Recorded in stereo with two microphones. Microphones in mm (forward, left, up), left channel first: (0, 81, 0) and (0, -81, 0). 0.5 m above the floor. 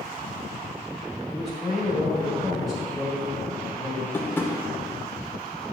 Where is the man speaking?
Centre (ahead or behind), 2 m.